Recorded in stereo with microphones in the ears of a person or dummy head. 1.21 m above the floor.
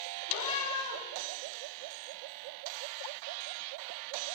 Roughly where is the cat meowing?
Left.